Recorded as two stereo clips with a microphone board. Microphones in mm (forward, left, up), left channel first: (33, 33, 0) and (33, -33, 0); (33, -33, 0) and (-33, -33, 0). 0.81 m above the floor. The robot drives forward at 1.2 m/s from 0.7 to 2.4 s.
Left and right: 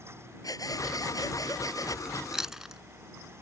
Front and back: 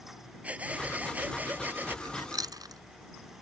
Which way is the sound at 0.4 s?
110° left.